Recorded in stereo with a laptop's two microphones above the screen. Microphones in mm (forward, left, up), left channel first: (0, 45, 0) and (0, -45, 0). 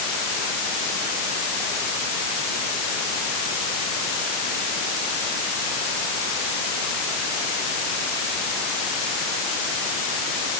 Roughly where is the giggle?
I don't hear a giggle.